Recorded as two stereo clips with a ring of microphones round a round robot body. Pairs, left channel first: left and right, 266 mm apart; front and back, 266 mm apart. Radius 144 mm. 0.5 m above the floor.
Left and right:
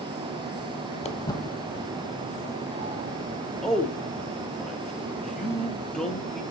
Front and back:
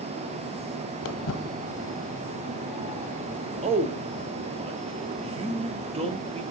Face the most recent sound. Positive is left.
turn(degrees=175)